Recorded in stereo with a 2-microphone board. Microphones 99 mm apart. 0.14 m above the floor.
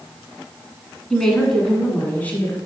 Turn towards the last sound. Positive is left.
turn(degrees=20)  # may be behind; listen again after turning